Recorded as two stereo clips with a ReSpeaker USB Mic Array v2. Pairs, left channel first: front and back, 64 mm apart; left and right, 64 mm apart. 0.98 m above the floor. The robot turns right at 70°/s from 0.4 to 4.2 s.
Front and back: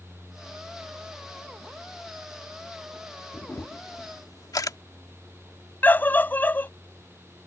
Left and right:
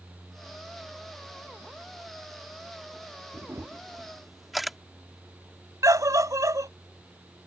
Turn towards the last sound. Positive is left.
turn(degrees=-60)